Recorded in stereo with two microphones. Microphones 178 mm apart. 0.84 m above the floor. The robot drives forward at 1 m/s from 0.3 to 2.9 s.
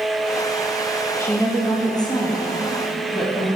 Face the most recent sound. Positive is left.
turn(degrees=15)  # may be behind; listen again after turning